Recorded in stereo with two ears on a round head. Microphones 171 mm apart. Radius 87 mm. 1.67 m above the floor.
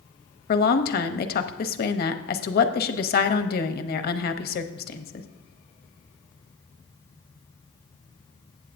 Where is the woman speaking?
55° left (ahead or behind), 0.8 m.